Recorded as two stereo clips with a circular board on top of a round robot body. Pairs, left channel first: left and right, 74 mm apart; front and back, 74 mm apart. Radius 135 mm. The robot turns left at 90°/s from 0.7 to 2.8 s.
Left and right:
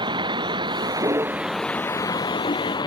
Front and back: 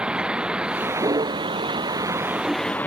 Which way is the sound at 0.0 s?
105° right.